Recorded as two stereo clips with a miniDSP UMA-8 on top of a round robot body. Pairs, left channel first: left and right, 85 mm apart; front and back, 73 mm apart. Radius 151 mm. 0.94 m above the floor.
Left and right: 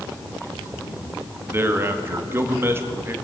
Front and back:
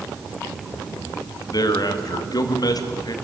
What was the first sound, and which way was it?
A man speaking, 25° right.